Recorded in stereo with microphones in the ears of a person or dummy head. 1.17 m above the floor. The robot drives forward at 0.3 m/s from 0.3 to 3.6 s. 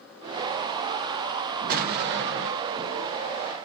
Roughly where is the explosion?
Right.